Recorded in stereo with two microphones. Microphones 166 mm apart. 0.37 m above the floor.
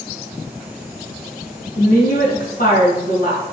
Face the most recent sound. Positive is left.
turn(degrees=65)  # may be behind; listen again after turning